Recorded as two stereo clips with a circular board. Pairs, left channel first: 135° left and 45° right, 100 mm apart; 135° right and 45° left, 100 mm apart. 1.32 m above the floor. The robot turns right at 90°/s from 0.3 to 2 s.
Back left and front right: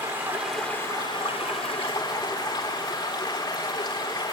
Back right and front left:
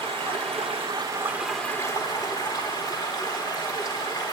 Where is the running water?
25° left, 4 m; by 4.3 s 175° left, 4 m.